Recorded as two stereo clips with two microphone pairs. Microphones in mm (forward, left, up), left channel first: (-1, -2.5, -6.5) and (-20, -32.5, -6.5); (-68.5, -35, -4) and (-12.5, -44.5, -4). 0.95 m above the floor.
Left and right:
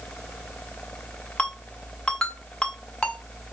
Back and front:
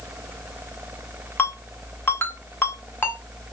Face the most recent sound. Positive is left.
turn(degrees=125)